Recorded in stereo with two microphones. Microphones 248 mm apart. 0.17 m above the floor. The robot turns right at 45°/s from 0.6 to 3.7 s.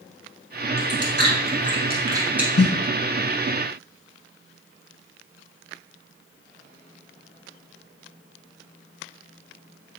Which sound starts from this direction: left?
A snare drum, at 2.6 s.